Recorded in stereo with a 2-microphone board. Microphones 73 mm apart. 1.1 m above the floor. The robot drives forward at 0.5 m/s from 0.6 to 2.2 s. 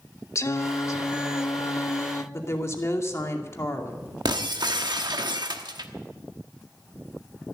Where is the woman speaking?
40° left (ahead or behind), 2.5 m.